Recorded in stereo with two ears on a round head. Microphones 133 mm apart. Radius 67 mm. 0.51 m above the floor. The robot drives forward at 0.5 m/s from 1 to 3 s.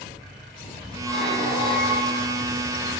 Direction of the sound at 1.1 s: Centre (ahead or behind).